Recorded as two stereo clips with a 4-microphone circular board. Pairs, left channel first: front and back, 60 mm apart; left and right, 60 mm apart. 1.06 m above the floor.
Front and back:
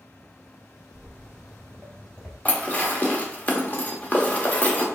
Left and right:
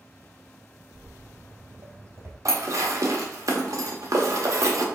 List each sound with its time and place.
0.9 s footsteps: 55° right, 1.9 m; by 2.4 s 80° right, 1.3 m
2.5 s dishes clattering: 60° right, 0.9 m